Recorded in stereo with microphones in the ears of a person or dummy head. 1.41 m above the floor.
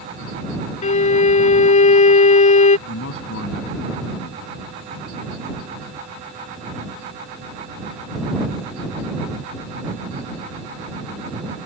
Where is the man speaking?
65° left (ahead or behind).